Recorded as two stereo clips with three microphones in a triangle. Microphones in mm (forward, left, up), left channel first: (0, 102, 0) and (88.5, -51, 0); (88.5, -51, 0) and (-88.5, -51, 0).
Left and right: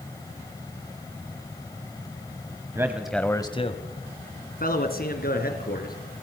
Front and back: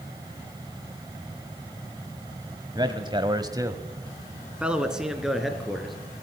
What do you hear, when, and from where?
2.8 s a man speaking: 125° right, 1.3 m; by 6.0 s 90° left, 4 m